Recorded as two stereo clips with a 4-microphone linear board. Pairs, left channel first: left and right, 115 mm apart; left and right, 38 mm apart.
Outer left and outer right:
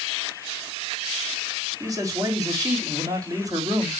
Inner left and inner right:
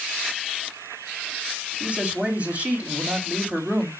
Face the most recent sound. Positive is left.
turn(degrees=-30)  # may be behind; listen again after turning